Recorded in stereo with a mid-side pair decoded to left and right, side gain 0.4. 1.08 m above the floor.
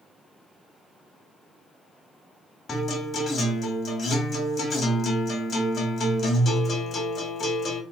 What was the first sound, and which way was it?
A guitar, 55° left.